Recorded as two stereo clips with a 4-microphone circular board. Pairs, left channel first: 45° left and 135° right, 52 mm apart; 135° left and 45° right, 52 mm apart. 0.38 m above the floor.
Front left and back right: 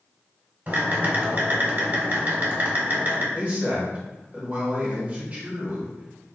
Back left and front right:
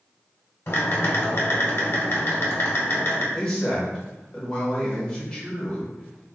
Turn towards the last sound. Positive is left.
turn(degrees=-160)